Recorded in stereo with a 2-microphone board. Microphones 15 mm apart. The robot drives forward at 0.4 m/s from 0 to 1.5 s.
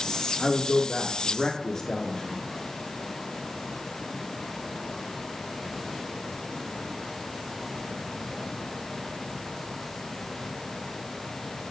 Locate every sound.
0.4 s a man speaking: 45° left (ahead or behind), 1.6 m